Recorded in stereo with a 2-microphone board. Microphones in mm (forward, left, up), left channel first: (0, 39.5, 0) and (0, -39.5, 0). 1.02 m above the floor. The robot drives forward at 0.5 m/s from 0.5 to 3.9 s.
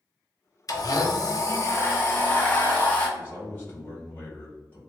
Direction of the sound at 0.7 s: 50° left (ahead or behind).